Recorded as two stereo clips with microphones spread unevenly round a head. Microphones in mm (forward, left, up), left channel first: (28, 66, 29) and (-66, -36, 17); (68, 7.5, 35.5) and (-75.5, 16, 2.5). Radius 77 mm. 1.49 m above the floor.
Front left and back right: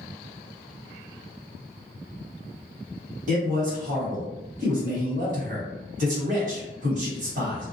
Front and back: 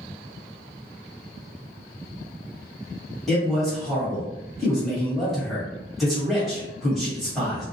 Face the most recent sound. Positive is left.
turn(degrees=-95)